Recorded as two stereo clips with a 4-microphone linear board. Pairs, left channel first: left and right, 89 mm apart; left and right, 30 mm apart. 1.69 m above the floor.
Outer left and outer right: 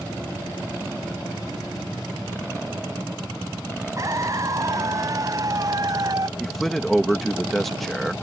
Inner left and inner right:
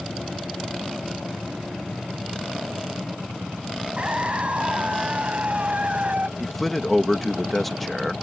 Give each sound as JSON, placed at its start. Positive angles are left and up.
{"t": 4.0, "sound": "a scream", "side_deg": -40}
{"t": 6.4, "sound": "a man speaking", "side_deg": 5}